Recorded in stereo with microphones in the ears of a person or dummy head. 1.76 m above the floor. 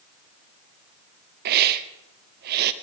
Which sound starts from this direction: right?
A hiss, at 1.4 s.